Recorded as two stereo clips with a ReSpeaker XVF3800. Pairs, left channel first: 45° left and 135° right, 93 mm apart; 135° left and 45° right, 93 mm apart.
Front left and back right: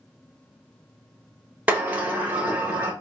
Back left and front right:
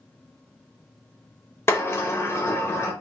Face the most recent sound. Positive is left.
turn(degrees=170)